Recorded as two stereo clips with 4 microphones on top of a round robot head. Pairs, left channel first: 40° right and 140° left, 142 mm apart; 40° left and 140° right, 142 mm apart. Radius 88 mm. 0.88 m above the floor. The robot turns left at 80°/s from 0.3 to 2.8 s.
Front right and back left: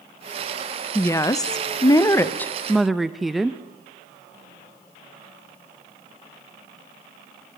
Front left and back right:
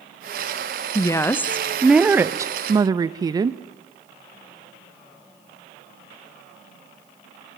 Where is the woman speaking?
15° left, 0.6 m; by 3.6 s 135° right, 0.6 m.